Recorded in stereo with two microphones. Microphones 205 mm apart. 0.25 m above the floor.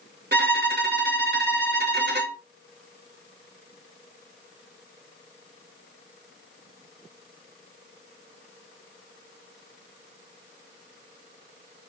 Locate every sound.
0.3 s a violin: 55° right (ahead or behind), 0.9 m